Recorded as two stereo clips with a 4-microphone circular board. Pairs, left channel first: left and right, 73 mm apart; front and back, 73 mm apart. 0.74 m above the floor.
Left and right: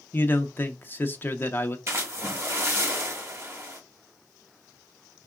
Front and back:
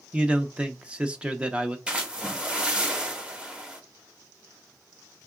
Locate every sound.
0.1 s a man speaking: 115° left, 0.5 m
1.9 s a splash: 115° right, 1.1 m